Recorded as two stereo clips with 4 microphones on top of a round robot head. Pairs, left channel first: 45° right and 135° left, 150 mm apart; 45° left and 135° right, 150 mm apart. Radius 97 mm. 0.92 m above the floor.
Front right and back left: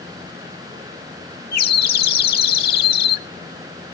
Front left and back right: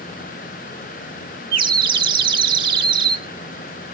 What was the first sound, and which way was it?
A bird, 70° right.